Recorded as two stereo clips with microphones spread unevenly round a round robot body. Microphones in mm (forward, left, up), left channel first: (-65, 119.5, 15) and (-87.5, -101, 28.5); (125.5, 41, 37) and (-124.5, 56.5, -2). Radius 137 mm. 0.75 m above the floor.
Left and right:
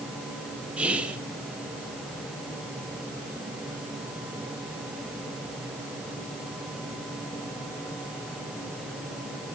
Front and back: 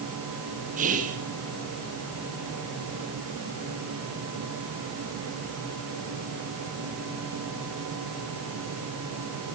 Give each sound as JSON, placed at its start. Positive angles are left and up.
{"t": 0.8, "sound": "whispering", "azimuth_deg": 180, "distance_m": 1.2}